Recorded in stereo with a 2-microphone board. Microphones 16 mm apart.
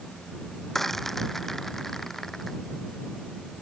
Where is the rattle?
20° left (ahead or behind).